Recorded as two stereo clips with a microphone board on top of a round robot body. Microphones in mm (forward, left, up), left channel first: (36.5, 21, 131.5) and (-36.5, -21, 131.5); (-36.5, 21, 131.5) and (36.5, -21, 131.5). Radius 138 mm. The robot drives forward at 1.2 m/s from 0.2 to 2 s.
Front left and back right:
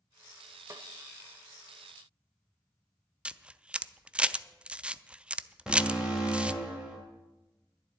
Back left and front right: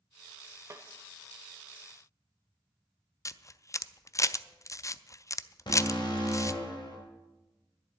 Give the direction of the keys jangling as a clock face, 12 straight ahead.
I don't hear keys jangling.